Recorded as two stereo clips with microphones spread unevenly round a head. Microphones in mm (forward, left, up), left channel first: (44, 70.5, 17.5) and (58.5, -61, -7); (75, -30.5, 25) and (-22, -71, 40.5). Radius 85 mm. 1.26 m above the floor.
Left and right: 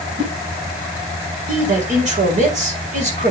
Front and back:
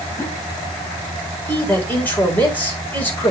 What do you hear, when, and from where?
0.2 s a whoosh: 50° right, 7 m
1.5 s a man speaking: 50° right, 4.5 m